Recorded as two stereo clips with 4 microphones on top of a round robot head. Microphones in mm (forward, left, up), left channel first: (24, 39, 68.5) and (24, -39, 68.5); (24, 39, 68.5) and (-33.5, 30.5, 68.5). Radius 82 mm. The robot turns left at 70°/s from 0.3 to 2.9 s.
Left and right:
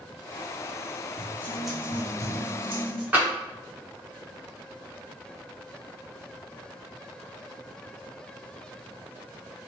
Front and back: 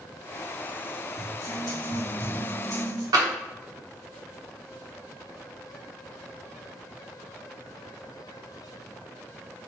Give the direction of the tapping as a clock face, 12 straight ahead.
5 o'clock.